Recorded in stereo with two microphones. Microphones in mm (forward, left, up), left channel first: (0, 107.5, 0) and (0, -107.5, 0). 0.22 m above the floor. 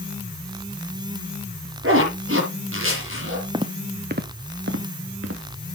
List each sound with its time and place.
1.8 s a zipper: 75° right (ahead or behind), 6 m
3.5 s footsteps: 20° right (ahead or behind), 1.0 m; by 5.8 s 85° right, 2.5 m